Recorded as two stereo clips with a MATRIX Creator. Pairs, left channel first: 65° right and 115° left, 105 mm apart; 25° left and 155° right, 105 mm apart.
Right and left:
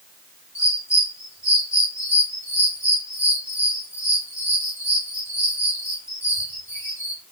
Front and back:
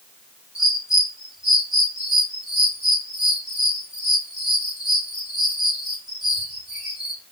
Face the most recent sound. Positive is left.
turn(degrees=-80)